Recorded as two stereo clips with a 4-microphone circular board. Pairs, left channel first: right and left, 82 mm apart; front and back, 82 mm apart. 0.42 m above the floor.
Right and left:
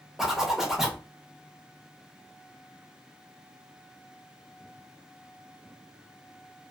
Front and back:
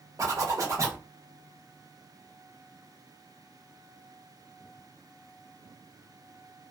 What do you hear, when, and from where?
0.2 s a zipper: 175° left, 0.8 m